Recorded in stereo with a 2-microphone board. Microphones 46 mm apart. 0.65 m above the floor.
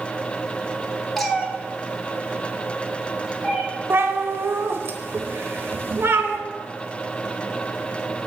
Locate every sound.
1.2 s a cat meowing: 10° left (ahead or behind), 1.1 m; by 3.6 s 10° right (ahead or behind), 2.5 m
3.9 s a cat meowing: 55° right (ahead or behind), 1.0 m